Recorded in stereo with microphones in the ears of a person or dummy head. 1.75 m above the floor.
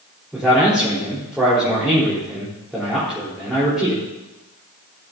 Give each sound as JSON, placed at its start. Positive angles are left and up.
{"t": 0.3, "sound": "a man speaking", "side_deg": 0, "distance_m": 4.5}